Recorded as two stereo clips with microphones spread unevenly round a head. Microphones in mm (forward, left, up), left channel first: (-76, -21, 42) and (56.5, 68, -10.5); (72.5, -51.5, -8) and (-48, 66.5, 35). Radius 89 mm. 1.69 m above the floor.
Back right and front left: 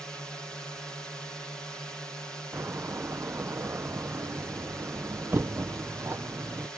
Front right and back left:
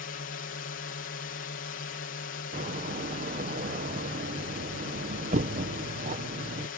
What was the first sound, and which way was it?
A drone, 50° right.